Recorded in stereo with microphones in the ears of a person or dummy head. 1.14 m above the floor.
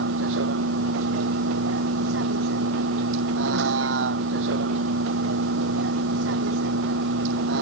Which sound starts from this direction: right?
A vehicle, at 0.0 s.